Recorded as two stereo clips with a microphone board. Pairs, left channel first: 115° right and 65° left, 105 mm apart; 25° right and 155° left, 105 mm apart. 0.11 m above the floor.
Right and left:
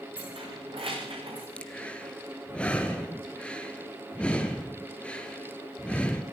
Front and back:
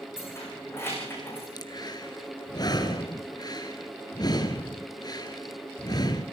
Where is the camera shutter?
I don't hear a camera shutter.